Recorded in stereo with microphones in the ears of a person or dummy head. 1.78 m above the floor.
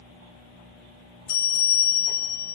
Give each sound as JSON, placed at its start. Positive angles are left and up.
{"t": 1.3, "sound": "a bell", "side_deg": 50, "distance_m": 1.0}